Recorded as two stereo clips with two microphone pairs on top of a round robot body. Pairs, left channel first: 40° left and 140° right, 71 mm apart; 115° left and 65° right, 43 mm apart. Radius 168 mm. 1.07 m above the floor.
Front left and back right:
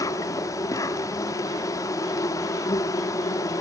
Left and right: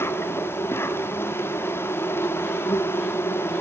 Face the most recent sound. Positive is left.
turn(degrees=85)